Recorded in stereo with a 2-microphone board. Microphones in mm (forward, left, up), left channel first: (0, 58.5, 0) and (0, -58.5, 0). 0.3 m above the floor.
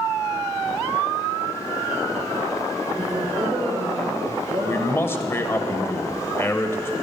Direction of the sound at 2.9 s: 35° right (ahead or behind).